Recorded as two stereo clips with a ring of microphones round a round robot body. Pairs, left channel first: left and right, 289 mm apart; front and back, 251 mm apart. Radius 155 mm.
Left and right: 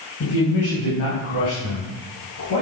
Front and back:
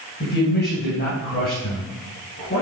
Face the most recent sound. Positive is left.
turn(degrees=55)